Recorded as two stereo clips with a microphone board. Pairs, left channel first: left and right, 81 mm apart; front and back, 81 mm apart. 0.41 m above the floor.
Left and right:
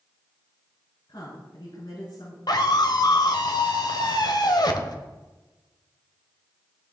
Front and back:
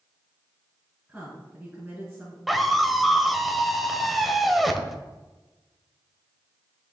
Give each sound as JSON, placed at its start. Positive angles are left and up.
{"t": 1.1, "sound": "a woman speaking", "azimuth_deg": 100, "distance_m": 5.0}
{"t": 2.5, "sound": "a scream", "azimuth_deg": 90, "distance_m": 1.6}